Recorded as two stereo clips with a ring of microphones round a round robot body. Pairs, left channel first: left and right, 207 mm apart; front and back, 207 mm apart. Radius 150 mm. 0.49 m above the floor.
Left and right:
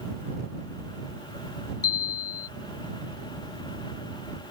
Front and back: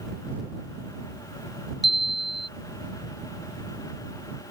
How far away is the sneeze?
No sneeze in this recording.